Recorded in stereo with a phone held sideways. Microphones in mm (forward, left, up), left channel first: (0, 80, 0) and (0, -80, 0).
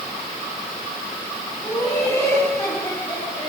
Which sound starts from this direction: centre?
Laughter, at 1.6 s.